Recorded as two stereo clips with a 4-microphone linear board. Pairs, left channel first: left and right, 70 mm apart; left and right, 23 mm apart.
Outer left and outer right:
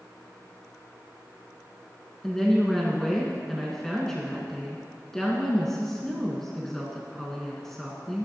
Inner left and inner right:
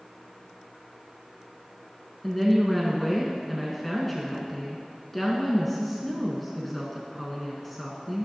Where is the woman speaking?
5° left (ahead or behind), 1.6 m.